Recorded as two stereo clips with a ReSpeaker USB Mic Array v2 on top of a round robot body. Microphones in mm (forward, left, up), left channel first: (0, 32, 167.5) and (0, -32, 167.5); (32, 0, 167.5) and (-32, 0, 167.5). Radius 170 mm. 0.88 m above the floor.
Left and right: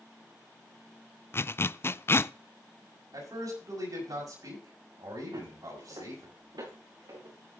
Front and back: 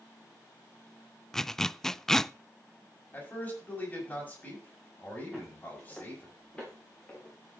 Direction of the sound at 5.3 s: 90° right.